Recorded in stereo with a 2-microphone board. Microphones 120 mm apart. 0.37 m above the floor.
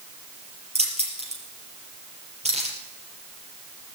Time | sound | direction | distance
0.8 | keys jangling | 65° right (ahead or behind) | 5 m